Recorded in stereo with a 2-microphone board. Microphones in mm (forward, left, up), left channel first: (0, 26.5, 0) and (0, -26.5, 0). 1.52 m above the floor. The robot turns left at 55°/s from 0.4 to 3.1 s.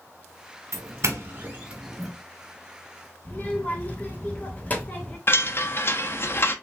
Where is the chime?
45° left (ahead or behind), 0.6 m.